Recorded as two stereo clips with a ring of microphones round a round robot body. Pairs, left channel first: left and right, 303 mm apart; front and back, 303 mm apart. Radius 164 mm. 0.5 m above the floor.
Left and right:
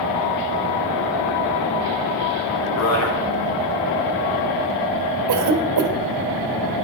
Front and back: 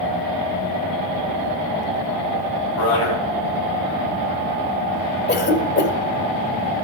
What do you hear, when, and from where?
2.8 s a man speaking: 50° left, 5.5 m
5.3 s a cough: 55° right, 2 m